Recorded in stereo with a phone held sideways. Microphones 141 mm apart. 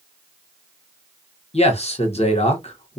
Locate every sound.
1.5 s a man speaking: 50° left (ahead or behind), 0.9 m